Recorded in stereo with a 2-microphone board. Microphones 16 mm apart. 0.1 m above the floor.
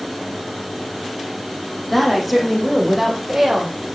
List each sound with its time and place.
1.9 s a woman speaking: 10° left (ahead or behind), 5 m; by 3.8 s 20° right (ahead or behind), 6 m